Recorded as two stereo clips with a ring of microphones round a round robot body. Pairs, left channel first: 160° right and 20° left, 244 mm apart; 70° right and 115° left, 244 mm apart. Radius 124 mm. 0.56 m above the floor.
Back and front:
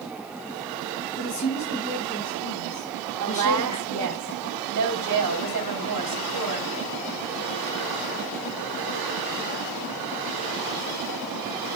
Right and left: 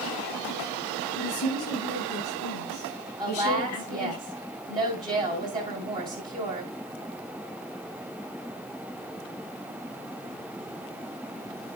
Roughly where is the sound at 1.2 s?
Right.